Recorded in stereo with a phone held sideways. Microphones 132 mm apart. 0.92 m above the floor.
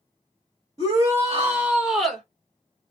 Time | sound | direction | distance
0.8 | a shout | 25° right (ahead or behind) | 1.5 m